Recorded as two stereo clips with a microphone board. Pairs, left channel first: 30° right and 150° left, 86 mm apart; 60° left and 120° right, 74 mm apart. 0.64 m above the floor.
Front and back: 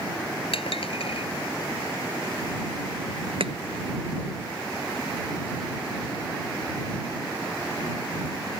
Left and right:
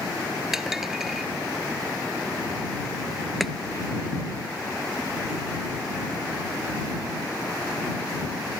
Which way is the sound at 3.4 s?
150° left.